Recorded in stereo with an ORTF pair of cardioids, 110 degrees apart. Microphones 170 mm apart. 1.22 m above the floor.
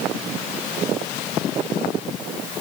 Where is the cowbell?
No cowbell in this recording.